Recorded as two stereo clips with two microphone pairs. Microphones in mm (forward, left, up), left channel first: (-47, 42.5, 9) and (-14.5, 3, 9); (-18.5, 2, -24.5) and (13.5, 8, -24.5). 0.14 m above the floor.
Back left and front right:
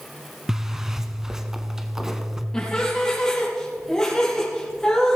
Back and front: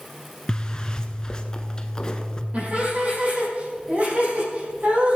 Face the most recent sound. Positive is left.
turn(degrees=50)